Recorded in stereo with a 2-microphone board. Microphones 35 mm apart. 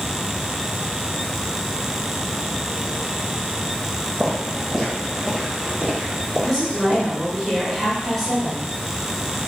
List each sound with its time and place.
4.2 s footsteps: 5° left (ahead or behind), 1.5 m; by 7.1 s 50° right (ahead or behind), 2.5 m
6.4 s a woman speaking: 5° left (ahead or behind), 1.2 m